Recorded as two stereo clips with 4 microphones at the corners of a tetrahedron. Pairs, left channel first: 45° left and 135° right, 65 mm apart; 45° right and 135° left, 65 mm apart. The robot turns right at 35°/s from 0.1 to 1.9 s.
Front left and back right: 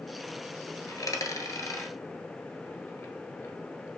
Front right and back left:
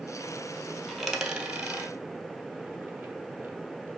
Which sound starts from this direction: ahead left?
A dropped coin, at 0.9 s.